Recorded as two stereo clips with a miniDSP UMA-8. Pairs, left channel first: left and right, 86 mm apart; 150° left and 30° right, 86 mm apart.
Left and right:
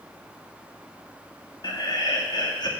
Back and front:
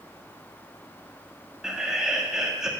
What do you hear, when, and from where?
1.6 s laughter: 55° left, 1.9 m